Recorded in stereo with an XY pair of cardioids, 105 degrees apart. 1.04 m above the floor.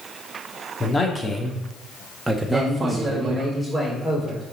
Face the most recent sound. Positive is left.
turn(degrees=-10)